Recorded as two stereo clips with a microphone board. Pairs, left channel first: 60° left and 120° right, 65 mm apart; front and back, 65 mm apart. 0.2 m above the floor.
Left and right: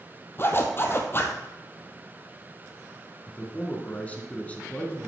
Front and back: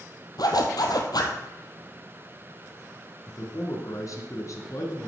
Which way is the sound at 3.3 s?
5° right.